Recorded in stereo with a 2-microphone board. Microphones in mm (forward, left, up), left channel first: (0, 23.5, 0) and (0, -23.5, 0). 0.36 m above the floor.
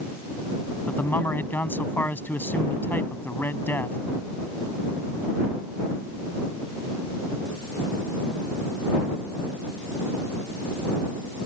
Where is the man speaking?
45° left (ahead or behind).